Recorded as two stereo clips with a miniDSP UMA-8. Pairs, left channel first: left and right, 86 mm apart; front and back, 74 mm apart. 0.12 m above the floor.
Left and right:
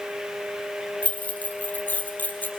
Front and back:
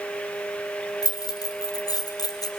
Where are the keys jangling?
20° left, 2.5 m.